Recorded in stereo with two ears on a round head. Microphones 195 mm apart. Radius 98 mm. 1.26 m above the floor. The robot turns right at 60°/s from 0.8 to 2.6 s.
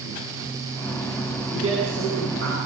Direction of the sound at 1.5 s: 120° right.